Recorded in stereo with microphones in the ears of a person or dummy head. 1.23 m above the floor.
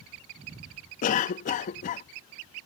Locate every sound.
1.0 s a cough: 50° left (ahead or behind)